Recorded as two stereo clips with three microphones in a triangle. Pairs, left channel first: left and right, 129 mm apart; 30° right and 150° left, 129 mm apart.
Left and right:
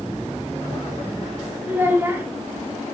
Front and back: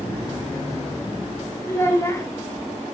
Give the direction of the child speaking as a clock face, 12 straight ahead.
1 o'clock.